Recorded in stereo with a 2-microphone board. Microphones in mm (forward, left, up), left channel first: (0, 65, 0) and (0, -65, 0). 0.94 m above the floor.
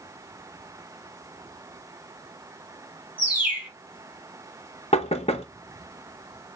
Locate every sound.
3.2 s a bird: 10° right (ahead or behind), 3 m
4.9 s knocking: 50° left (ahead or behind), 0.9 m